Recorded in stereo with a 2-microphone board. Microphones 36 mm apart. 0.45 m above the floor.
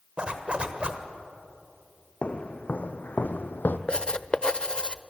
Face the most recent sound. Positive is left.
turn(degrees=30)  # may be behind; listen again after turning